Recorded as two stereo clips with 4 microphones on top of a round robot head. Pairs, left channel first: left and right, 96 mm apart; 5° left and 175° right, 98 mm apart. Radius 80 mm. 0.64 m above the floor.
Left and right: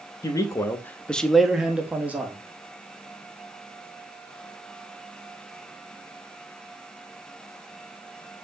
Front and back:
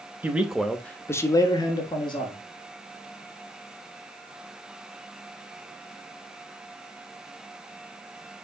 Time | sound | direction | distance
0.2 | a man speaking | 120° left | 0.7 m